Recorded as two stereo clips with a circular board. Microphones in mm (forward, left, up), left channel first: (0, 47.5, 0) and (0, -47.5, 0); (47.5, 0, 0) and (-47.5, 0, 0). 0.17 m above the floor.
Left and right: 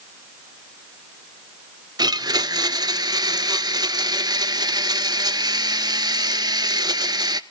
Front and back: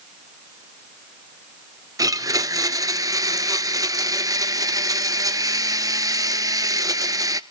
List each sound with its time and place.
2.0 s a blender: 130° right, 0.7 m